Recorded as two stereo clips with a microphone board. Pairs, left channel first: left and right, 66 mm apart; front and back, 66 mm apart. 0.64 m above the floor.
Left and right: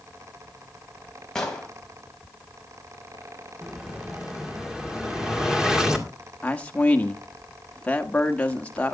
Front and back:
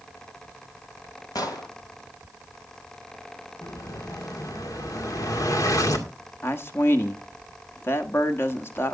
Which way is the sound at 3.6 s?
10° right.